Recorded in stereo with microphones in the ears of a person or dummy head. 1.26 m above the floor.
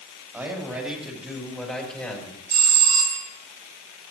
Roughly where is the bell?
Right.